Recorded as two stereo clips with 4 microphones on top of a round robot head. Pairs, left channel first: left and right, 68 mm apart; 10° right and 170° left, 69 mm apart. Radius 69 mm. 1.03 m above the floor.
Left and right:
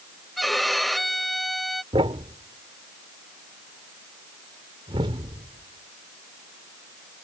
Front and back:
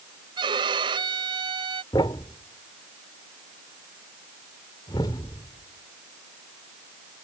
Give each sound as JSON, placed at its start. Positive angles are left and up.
{"t": 0.4, "sound": "a violin", "azimuth_deg": 180}
{"t": 1.9, "sound": "a thud", "azimuth_deg": -55}